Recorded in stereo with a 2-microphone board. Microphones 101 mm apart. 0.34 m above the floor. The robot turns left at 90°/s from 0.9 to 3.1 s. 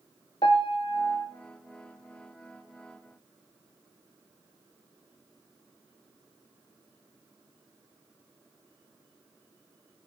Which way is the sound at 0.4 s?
60° left.